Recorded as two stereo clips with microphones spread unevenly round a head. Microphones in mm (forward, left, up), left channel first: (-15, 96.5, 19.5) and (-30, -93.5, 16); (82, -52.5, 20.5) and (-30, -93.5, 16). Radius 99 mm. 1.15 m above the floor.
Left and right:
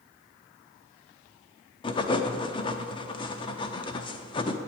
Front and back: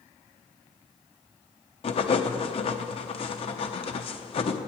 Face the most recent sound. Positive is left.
turn(degrees=25)